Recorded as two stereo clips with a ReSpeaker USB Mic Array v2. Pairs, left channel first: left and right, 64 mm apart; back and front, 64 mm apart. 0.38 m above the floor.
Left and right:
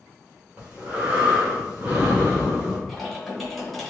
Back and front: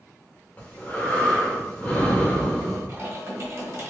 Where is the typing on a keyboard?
5° left, 1.2 m.